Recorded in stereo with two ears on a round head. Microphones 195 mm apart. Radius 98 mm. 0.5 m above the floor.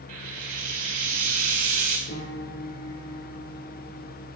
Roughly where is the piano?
Left.